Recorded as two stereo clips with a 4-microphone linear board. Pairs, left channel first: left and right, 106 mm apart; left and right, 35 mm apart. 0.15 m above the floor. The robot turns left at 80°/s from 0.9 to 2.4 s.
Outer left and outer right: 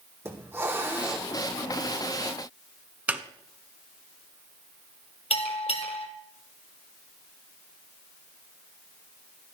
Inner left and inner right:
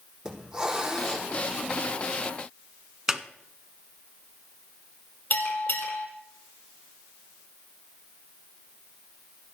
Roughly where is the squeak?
Centre.